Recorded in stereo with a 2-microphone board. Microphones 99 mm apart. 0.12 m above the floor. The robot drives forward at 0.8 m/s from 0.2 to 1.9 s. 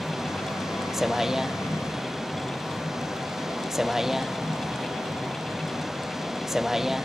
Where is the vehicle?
5° right (ahead or behind).